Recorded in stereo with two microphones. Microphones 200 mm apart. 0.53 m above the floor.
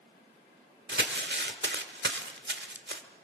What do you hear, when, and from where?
0.9 s crumpling: 60° right (ahead or behind), 1.5 m